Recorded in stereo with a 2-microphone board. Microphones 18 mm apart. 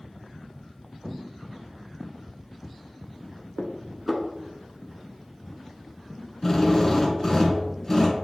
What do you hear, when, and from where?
3.6 s dishes clattering: 10° right (ahead or behind), 0.9 m
6.4 s a drill: 20° left (ahead or behind), 1.3 m